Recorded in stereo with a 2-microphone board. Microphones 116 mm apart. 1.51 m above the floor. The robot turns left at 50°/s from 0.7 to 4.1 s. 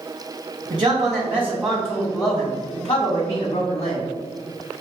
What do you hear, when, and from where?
0.7 s a man speaking: 125° right, 1.4 m; by 4.1 s 70° left, 1.4 m